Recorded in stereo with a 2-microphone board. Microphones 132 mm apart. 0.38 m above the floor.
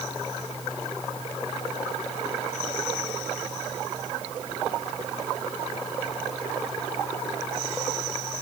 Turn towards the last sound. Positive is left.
No sound to turn to.